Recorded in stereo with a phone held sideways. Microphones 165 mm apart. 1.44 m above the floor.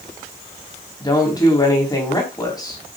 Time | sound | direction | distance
1.0 | a woman speaking | 25° left (ahead or behind) | 4 m